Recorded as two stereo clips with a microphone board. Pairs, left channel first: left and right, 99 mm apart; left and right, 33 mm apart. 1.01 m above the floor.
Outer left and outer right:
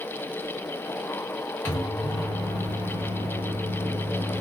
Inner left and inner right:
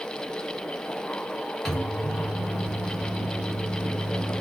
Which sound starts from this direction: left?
A microwave, at 1.6 s.